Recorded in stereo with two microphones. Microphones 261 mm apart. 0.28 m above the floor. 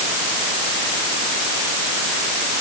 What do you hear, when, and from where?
Only background noise.